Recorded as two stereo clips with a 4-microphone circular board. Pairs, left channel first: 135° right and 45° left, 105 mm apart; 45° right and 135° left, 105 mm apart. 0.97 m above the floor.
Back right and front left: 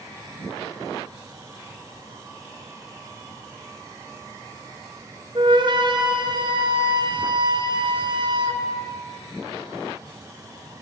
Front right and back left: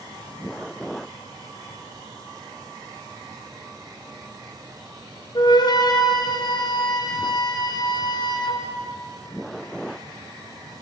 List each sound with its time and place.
5.3 s a flute: straight ahead, 0.6 m